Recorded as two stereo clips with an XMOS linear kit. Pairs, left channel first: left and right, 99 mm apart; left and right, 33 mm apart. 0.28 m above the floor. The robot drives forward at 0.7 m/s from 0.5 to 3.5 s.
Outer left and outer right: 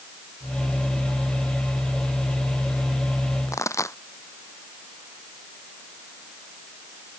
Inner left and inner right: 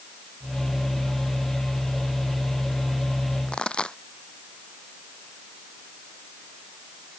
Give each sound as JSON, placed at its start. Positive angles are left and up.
{"t": 3.5, "sound": "a pop", "side_deg": 30}